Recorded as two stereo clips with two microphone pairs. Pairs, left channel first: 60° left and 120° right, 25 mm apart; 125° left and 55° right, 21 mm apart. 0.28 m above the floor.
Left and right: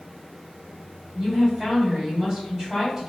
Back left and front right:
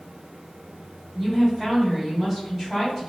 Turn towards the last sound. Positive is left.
turn(degrees=-120)